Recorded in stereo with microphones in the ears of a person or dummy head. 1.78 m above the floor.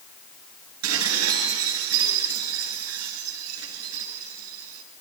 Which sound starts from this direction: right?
Dishes clattering, at 0.8 s.